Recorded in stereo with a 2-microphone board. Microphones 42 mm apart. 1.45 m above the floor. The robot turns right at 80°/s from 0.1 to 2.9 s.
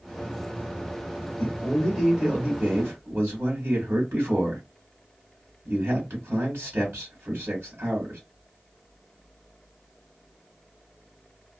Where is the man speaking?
140° left, 1.7 m; by 8.2 s 100° right, 1.7 m.